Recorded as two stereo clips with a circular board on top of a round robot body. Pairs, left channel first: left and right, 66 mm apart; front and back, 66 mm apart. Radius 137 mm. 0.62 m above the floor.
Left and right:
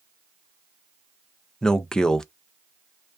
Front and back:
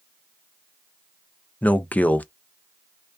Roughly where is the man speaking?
Ahead left.